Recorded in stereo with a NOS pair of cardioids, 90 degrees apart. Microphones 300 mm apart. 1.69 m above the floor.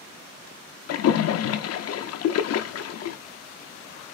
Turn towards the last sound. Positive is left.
turn(degrees=55)